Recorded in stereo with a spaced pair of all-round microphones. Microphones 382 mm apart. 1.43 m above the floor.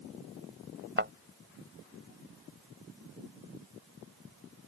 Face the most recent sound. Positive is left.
turn(degrees=-30)  # may be behind; listen again after turning